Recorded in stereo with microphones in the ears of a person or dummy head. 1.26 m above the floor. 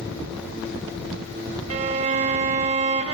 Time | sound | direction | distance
1.7 | a violin | 40° right (ahead or behind) | 1.2 m